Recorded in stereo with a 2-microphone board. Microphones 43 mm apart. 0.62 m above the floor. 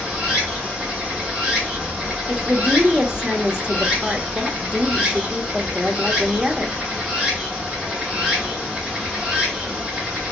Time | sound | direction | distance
0.0 | running water | 5° right (ahead or behind) | 2.5 m
2.3 | a woman speaking | 20° right (ahead or behind) | 0.8 m